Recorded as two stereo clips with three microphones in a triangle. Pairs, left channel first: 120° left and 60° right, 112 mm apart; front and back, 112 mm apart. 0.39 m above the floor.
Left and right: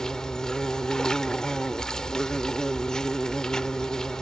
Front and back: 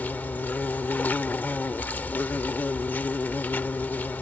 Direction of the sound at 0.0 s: 45° left.